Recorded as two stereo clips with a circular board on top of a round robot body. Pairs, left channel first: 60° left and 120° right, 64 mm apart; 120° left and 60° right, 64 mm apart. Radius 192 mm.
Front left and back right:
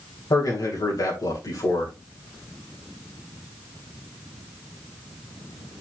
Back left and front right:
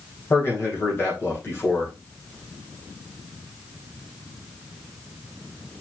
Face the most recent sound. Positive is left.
turn(degrees=70)